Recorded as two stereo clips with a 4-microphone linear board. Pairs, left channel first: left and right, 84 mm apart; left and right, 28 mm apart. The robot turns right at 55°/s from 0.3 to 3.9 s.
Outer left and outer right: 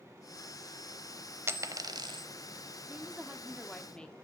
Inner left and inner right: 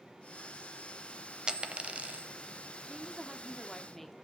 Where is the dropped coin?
30° right (ahead or behind), 0.7 m; by 2.3 s 70° right (ahead or behind), 0.7 m.